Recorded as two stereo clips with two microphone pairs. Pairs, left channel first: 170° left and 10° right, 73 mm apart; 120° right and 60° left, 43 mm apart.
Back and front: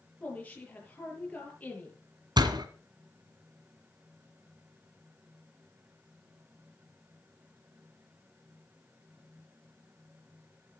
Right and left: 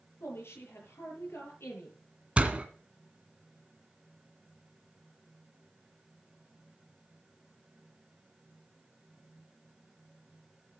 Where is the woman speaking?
115° right, 8 m.